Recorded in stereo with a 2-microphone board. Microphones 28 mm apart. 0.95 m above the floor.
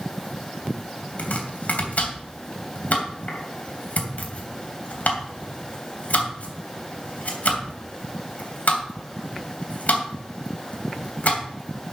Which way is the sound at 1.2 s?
65° left (ahead or behind).